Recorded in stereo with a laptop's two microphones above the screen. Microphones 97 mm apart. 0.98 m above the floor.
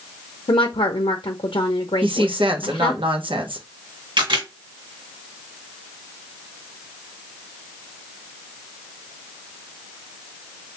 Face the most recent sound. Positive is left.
turn(degrees=-65)  # may be behind; listen again after turning